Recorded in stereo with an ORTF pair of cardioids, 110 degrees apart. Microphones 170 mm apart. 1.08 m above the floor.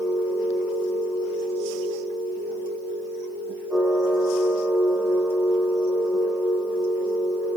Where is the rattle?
No rattle in this recording.